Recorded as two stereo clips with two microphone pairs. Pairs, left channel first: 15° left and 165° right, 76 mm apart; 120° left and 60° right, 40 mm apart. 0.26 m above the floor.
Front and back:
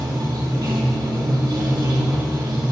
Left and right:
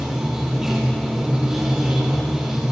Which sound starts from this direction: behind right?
Running water, at 0.0 s.